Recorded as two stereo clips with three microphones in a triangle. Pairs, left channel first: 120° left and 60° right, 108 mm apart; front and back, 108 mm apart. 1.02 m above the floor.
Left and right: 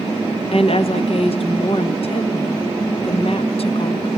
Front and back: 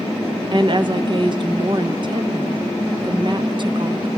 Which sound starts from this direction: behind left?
A woman speaking, at 0.5 s.